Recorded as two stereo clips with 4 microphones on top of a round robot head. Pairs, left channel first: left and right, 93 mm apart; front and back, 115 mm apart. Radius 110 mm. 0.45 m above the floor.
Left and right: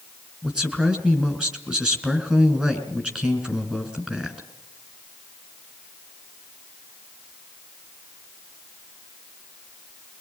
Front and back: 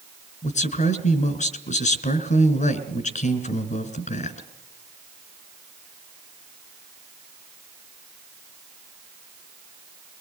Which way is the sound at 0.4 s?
10° right.